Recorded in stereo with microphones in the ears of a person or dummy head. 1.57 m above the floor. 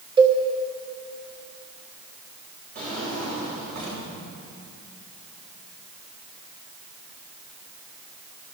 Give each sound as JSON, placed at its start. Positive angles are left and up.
{"t": 0.2, "sound": "a cowbell", "side_deg": -25, "distance_m": 1.5}
{"t": 2.8, "sound": "a drawer", "side_deg": -45, "distance_m": 4.5}